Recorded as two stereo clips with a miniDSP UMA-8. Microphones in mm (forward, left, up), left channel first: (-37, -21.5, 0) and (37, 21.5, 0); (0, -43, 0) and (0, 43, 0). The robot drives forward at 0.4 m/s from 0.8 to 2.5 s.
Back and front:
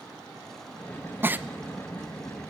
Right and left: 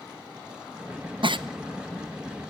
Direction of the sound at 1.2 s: 95° left.